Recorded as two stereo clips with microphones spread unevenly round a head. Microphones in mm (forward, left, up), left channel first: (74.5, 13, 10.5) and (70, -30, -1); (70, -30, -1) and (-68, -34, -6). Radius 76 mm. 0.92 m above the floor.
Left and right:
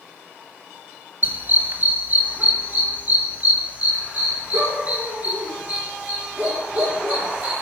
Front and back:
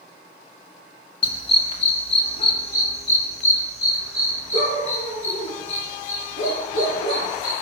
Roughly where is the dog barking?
Ahead right.